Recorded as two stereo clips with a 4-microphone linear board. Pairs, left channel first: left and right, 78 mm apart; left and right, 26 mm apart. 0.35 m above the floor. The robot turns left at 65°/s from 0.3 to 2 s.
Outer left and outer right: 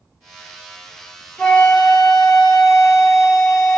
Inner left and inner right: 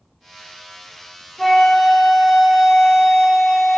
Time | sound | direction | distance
1.4 | a flute | 20° left (ahead or behind) | 1.1 m